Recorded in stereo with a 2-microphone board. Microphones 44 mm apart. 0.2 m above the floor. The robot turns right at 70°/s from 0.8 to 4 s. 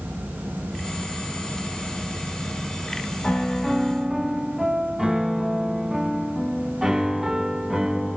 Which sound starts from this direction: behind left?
A piano, at 3.2 s.